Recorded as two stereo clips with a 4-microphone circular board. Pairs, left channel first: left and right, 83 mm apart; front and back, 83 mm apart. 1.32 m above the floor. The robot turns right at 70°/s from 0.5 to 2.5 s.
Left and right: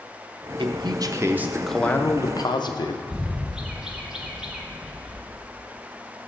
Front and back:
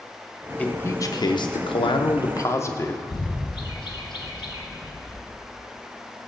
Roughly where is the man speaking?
Right.